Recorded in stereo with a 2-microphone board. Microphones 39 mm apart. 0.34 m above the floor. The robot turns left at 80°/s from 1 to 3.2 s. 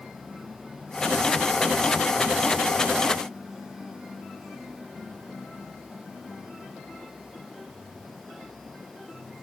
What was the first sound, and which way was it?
Only background noise.